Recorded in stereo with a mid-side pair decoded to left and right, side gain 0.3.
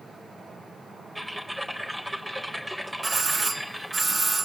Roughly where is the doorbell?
Ahead right.